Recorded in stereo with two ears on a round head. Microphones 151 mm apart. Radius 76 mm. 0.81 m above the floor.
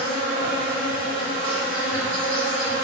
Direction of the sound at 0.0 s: 60° right (ahead or behind).